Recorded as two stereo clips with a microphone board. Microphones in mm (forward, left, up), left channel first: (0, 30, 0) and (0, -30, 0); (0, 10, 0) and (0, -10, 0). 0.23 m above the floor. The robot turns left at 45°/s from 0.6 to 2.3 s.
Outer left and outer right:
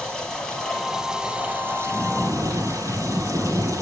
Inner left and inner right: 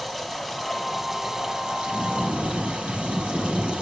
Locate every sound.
0.0 s running water: 15° left, 5 m; by 3.8 s 60° right, 5 m
1.9 s snoring: 10° left (ahead or behind), 8 m; by 3.8 s 10° right (ahead or behind), 8 m